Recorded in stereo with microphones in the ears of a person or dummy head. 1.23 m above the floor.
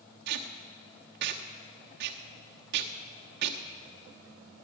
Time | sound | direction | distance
0.3 | tape being pulled | 60° right (ahead or behind) | 1.0 m